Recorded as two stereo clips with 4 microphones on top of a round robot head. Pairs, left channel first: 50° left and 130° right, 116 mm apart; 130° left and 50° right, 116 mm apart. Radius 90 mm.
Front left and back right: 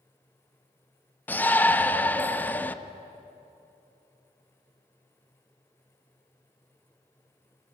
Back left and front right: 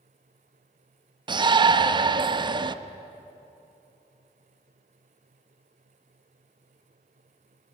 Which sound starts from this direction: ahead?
A shout, at 1.3 s.